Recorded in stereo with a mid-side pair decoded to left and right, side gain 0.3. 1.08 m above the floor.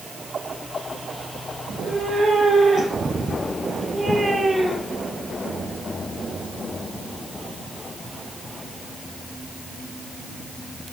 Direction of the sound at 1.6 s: 70° right.